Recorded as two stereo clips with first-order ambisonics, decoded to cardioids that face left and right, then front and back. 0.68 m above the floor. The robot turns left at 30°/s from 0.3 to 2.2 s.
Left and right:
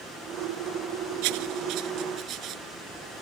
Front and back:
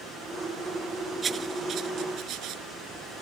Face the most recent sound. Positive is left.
turn(degrees=-135)